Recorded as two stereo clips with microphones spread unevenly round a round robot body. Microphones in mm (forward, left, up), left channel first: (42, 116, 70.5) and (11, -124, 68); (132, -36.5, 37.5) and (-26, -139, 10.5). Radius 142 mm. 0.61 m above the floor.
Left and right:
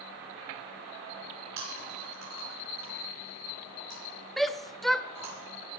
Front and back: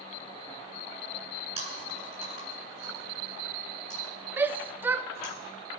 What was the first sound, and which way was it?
Chewing, 90° right.